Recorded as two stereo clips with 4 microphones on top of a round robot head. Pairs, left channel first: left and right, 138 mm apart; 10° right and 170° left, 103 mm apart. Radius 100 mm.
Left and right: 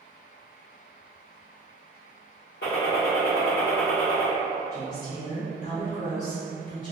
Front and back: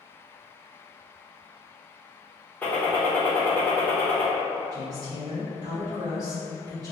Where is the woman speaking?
120° left, 1.5 m.